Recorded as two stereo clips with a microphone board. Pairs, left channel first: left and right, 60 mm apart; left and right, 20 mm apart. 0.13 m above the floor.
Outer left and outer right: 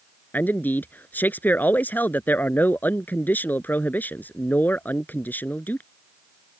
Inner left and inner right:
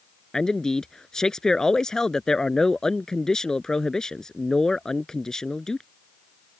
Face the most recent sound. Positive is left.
turn(degrees=35)  # may be behind; listen again after turning